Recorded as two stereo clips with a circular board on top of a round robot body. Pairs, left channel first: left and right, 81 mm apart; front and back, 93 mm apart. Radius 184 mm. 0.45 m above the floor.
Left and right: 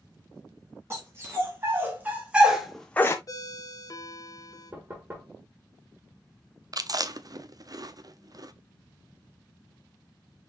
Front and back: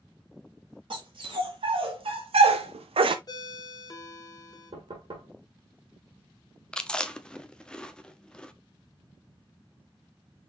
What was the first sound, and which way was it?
A dog barking, 150° right.